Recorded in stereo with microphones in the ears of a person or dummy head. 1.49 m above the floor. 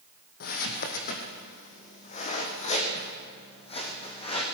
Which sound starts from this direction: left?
Footsteps, at 0.4 s.